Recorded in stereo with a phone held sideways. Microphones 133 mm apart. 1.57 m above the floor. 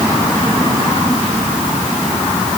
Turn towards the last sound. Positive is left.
No sound to turn to.